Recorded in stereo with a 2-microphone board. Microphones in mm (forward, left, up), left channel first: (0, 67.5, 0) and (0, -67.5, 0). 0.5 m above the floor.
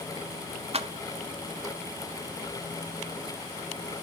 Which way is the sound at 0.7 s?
50° right (ahead or behind).